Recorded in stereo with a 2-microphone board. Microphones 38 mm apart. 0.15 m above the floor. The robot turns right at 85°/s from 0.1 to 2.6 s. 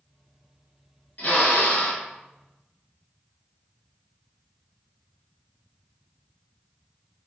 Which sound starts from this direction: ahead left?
A drill, at 1.2 s.